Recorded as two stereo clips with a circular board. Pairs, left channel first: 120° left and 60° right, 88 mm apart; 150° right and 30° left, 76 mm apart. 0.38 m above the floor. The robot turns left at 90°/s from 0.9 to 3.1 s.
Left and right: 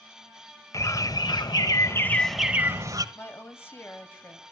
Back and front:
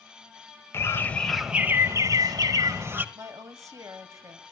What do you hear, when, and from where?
0.7 s a bird: 160° left, 1.1 m; by 3.0 s 30° right, 1.1 m
3.1 s a woman speaking: 65° left, 2 m